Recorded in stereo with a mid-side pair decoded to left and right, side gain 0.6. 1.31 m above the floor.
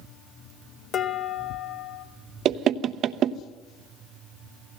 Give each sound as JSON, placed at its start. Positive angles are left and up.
{"t": 0.9, "sound": "dishes clattering", "azimuth_deg": 45, "distance_m": 2.5}
{"t": 2.5, "sound": "knocking", "azimuth_deg": -50, "distance_m": 0.9}